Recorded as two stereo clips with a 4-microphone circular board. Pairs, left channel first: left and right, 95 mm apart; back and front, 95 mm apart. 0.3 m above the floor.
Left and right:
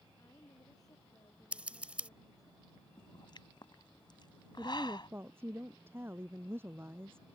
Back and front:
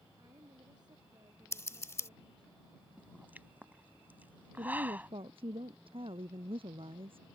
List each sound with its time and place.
0.2 s a woman speaking: 40° left
1.5 s scissors: 155° right
3.0 s a pop: 70° left
4.6 s a woman speaking: 25° right